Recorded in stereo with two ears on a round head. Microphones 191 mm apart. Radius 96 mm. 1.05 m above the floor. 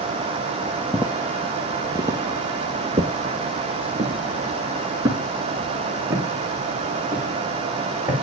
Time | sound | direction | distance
0.9 | footsteps | 5° right (ahead or behind) | 1.3 m